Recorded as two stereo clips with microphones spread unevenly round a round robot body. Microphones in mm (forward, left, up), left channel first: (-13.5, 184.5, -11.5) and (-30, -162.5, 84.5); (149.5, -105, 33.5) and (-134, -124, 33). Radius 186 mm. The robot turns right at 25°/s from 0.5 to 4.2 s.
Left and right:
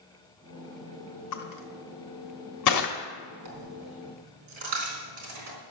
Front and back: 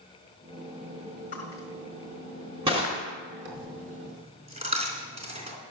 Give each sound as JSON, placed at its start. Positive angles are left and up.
{"t": 1.3, "sound": "crushing", "azimuth_deg": 75, "distance_m": 1.6}
{"t": 3.5, "sound": "a dropped coin", "azimuth_deg": -125, "distance_m": 3.5}